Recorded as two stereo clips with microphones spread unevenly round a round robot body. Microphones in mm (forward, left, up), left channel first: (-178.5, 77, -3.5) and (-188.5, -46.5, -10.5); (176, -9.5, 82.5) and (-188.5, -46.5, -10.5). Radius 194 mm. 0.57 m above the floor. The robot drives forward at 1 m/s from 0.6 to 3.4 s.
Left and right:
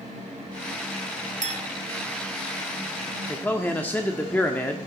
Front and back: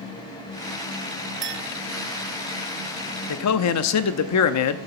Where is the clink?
115° right, 1.9 m; by 1.7 s 125° right, 2 m.